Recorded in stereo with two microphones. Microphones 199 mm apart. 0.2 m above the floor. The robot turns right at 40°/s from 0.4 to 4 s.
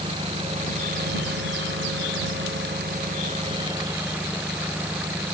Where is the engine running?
155° right; by 5.3 s 10° right.